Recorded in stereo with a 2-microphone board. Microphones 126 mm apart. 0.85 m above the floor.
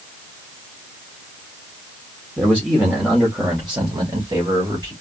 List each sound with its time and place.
2.4 s a man speaking: 10° right (ahead or behind), 1.4 m; by 4.9 s 35° right (ahead or behind), 2.5 m